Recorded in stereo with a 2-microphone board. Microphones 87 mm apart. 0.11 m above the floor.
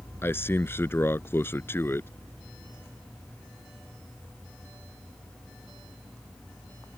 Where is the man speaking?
30° left (ahead or behind).